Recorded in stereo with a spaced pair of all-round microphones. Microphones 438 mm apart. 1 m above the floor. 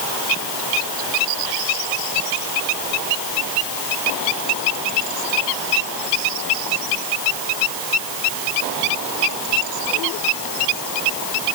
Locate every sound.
Only background noise.